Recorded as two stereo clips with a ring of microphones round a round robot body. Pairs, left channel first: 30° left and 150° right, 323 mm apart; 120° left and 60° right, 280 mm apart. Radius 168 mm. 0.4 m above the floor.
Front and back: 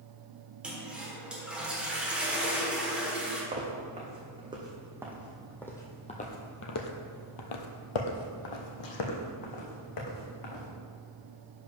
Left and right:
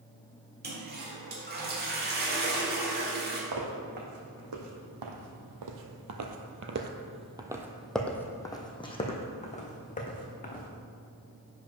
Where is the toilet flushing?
65° right, 1.5 m.